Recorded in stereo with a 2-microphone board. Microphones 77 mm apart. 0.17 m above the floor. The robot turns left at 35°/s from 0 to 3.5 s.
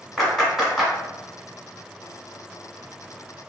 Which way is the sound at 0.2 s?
Centre (ahead or behind).